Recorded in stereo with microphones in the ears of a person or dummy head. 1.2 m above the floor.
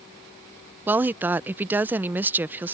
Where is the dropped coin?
I don't hear a dropped coin.